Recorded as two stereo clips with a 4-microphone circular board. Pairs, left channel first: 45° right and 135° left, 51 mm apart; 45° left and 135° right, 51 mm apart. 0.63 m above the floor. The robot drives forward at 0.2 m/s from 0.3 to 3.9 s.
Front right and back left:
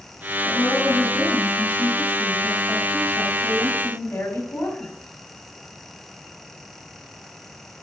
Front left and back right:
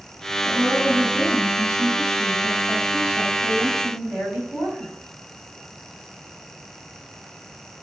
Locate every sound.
0.4 s a woman speaking: 60° right, 4.5 m; by 4.9 s 70° right, 4 m